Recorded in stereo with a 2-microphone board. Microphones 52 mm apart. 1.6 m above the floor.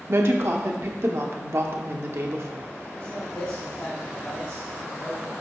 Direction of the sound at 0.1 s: 60° right (ahead or behind).